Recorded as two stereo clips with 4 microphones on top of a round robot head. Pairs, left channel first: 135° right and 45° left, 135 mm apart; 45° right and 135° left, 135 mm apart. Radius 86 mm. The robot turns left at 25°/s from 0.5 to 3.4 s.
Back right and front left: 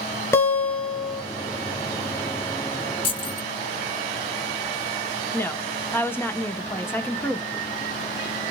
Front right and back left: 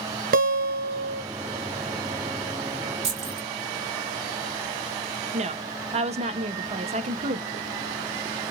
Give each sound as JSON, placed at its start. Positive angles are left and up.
{"t": 0.3, "sound": "a guitar", "azimuth_deg": 155, "distance_m": 0.9}
{"t": 3.0, "sound": "keys jangling", "azimuth_deg": 175, "distance_m": 1.9}
{"t": 5.3, "sound": "a woman speaking", "azimuth_deg": 155, "distance_m": 0.9}